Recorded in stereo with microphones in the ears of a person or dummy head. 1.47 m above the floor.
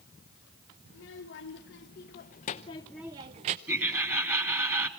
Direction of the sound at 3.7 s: 15° right (ahead or behind).